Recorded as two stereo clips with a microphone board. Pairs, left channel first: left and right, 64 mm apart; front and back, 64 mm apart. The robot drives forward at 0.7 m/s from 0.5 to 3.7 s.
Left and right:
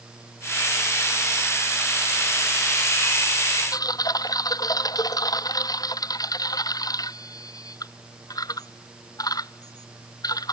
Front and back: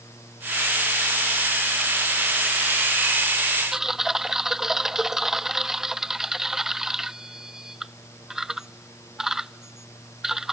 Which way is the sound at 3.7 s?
100° left.